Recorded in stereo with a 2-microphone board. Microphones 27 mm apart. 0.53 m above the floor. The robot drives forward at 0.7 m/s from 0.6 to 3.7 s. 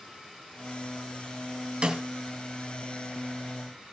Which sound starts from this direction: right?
A snare drum, at 1.8 s.